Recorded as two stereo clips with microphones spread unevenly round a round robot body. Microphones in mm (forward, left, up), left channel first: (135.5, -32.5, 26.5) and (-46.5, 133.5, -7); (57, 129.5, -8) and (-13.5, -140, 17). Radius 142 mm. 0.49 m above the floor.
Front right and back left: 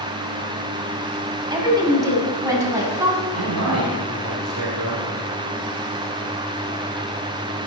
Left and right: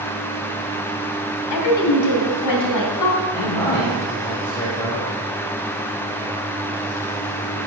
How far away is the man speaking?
About 2.5 m.